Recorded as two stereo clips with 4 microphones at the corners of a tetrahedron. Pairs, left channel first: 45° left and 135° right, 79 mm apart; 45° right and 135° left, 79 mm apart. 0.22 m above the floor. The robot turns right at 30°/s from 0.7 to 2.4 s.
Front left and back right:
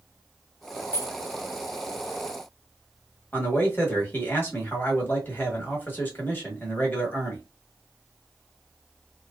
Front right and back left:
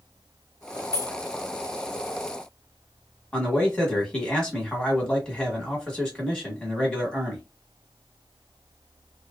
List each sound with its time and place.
0.9 s keys jangling: 5° right, 1.4 m; by 1.2 s straight ahead, 1.4 m
3.3 s a man speaking: 20° left, 1.3 m